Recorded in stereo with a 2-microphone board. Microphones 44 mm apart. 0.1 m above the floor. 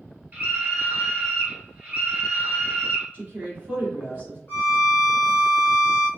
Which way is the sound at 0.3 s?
30° right (ahead or behind).